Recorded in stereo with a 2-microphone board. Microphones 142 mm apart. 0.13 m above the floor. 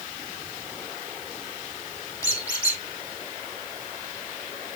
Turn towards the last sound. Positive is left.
turn(degrees=20)  # may be behind; listen again after turning